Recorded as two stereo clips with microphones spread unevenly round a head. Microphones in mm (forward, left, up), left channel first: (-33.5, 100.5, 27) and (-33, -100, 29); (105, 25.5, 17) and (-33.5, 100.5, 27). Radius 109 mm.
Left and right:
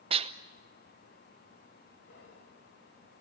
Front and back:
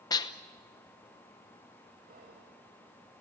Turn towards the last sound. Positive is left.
turn(degrees=125)